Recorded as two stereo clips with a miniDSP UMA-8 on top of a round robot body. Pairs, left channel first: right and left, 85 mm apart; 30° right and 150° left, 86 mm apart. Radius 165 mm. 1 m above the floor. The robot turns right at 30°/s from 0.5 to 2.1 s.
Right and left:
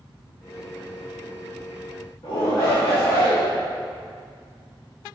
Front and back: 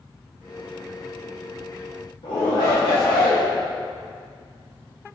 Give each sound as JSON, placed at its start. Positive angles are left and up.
{"t": 2.2, "sound": "a shout", "azimuth_deg": -50, "distance_m": 2.5}